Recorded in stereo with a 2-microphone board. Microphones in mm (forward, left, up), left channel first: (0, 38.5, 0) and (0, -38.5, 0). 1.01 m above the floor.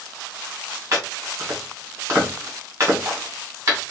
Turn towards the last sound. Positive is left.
turn(degrees=-35)  # may be behind; listen again after turning